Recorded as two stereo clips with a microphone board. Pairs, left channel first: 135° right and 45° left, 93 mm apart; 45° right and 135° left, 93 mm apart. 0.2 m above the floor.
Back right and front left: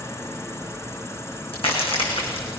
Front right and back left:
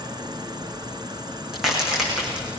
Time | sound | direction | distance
0.0 | an insect | 170° left | 2 m
1.5 | a crack | 140° right | 8.5 m